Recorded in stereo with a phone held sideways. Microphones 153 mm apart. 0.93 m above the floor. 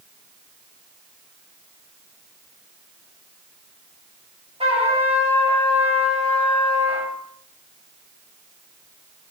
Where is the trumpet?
40° right (ahead or behind), 4 m.